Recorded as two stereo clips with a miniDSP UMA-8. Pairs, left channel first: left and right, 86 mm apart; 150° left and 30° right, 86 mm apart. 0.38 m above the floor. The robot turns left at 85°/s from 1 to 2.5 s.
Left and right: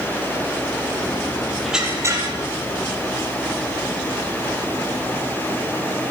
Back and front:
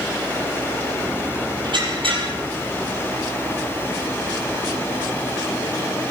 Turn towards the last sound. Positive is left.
turn(degrees=-70)